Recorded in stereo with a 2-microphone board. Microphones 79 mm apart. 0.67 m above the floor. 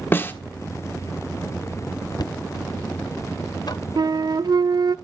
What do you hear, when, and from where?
0.1 s a snare drum: 30° left (ahead or behind), 1.2 m
2.2 s knocking: 55° left (ahead or behind), 0.5 m
4.0 s a flute: 60° right (ahead or behind), 0.5 m